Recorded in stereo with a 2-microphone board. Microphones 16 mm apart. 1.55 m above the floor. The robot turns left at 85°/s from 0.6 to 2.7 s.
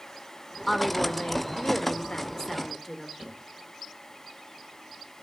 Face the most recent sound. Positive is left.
turn(degrees=-60)  # may be behind; listen again after turning